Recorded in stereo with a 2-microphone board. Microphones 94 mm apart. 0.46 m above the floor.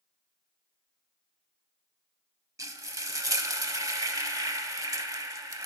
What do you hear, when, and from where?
2.6 s frying: 35° right (ahead or behind), 0.6 m